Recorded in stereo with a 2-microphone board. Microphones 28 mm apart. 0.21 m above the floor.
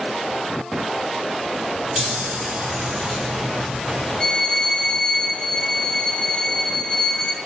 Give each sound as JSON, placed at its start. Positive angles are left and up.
{"t": 2.0, "sound": "a chime", "side_deg": -25, "distance_m": 6.5}
{"t": 4.2, "sound": "a violin", "side_deg": 5, "distance_m": 2.5}